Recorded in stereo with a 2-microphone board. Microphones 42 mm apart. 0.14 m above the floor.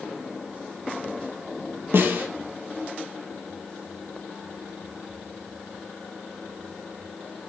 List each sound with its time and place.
1.9 s a snare drum: 60° right (ahead or behind), 1.4 m